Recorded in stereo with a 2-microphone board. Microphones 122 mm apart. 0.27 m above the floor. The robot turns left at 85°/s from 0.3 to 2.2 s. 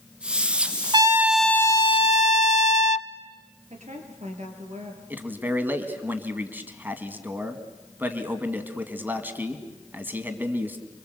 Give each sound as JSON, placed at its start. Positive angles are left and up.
{"t": 0.9, "sound": "a trumpet", "azimuth_deg": -140, "distance_m": 0.6}
{"t": 3.7, "sound": "a woman speaking", "side_deg": -70, "distance_m": 5.0}
{"t": 5.1, "sound": "a man speaking", "side_deg": -15, "distance_m": 2.0}